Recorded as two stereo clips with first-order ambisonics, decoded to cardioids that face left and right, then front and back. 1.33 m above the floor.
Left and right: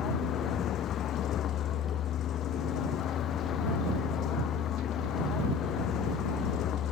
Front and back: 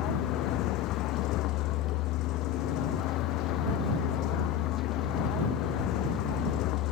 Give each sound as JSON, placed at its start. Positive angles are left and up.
{"t": 0.0, "sound": "a vehicle", "azimuth_deg": 40}